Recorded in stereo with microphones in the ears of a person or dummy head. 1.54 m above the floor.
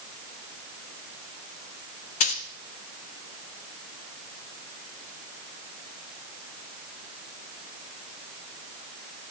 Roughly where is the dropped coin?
Left.